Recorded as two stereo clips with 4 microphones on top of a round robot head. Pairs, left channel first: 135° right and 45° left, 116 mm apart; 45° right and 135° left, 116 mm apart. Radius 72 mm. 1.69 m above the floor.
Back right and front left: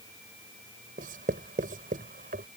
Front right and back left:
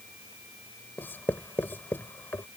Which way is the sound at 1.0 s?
30° left.